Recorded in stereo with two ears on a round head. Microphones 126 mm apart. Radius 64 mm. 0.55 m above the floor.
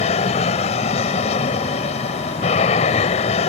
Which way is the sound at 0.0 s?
50° left (ahead or behind).